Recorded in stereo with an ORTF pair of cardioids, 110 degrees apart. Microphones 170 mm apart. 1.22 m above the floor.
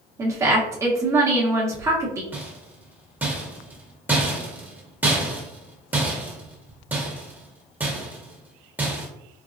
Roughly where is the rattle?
Ahead.